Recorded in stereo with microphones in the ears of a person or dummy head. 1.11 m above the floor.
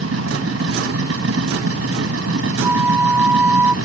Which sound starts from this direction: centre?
A flute, at 2.6 s.